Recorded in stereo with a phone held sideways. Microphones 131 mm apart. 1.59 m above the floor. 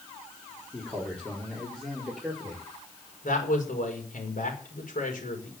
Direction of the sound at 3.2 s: 80° left.